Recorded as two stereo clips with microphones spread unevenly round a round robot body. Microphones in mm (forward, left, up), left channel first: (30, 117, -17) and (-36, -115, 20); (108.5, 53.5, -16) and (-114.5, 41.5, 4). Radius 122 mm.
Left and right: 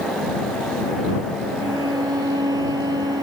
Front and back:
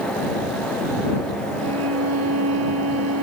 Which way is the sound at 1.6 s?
Straight behind.